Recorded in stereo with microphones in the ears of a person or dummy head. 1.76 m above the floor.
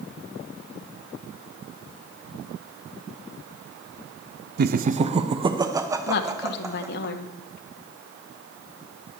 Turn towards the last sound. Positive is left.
turn(degrees=65)  # may be behind; listen again after turning